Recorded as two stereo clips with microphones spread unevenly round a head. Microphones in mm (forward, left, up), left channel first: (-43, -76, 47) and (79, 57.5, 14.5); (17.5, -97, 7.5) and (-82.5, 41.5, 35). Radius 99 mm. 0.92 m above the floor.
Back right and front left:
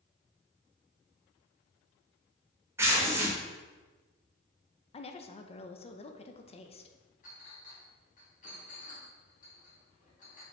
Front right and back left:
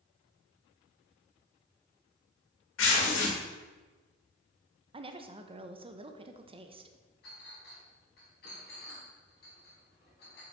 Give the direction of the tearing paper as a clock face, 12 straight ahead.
1 o'clock.